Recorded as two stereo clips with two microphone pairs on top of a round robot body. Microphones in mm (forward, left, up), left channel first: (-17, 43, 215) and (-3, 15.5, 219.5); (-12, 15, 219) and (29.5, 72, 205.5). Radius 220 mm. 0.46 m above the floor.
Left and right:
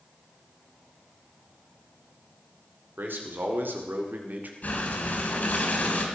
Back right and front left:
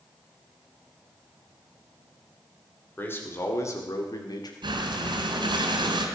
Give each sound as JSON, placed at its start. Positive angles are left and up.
{"t": 3.0, "sound": "a man speaking", "azimuth_deg": -60, "distance_m": 3.5}
{"t": 4.6, "sound": "breathing", "azimuth_deg": 75, "distance_m": 2.5}